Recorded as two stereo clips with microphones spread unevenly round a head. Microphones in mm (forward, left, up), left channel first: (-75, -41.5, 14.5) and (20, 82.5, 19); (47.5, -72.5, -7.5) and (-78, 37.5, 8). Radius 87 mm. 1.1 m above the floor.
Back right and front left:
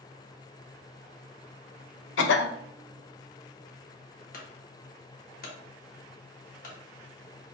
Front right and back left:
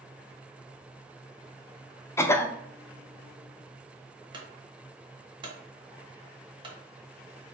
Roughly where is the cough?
Behind right.